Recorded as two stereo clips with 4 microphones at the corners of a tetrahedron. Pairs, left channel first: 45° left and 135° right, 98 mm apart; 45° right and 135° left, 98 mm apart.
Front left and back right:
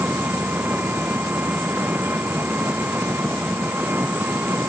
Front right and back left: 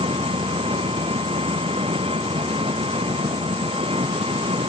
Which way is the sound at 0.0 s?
155° left.